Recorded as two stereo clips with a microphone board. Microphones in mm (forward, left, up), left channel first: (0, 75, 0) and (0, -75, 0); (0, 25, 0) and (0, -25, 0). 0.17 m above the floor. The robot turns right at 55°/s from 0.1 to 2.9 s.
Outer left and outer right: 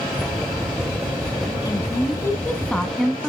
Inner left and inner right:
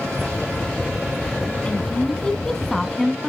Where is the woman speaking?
25° left (ahead or behind), 1.1 m; by 3.3 s 5° left (ahead or behind), 1.1 m.